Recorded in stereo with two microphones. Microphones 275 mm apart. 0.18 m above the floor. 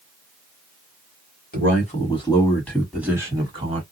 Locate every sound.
1.5 s a man speaking: 30° left (ahead or behind), 1.5 m; by 3.8 s 25° right (ahead or behind), 1.5 m